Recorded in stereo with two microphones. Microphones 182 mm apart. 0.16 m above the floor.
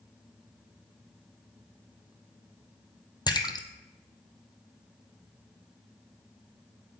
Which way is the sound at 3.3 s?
20° left (ahead or behind).